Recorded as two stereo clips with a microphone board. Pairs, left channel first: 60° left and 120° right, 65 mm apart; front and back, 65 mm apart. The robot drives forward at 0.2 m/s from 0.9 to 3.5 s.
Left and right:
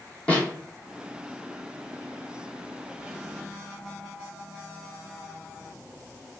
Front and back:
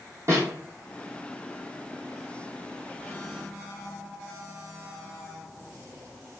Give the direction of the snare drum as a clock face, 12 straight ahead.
8 o'clock.